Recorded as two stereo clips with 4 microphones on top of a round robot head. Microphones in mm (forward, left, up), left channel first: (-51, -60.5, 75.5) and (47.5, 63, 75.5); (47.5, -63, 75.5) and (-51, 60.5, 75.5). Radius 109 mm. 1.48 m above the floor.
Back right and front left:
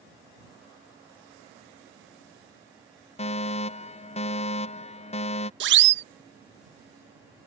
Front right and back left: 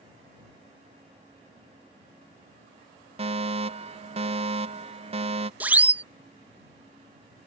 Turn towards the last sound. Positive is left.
turn(degrees=50)